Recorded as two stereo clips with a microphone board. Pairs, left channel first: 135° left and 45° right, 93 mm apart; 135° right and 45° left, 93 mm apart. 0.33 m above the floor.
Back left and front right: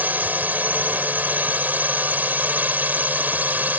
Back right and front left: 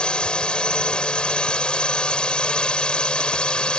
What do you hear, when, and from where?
0.0 s a drone: 75° right